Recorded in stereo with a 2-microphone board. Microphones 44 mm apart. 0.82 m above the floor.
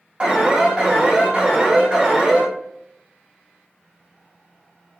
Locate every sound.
0.2 s an alarm: 25° right (ahead or behind), 1.0 m